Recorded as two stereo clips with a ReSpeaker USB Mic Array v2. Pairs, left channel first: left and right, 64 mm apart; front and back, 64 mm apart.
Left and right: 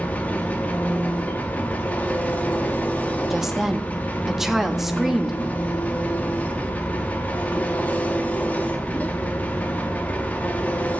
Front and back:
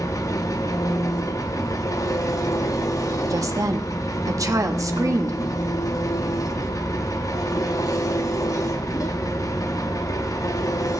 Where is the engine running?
25° left, 0.8 m.